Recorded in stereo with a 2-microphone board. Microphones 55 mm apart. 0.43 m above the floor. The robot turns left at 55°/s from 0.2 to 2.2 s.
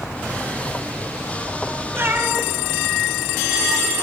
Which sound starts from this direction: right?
A cat meowing, at 1.9 s.